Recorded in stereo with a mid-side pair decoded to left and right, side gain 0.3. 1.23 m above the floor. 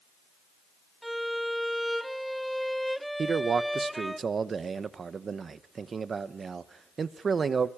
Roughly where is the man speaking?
Ahead right.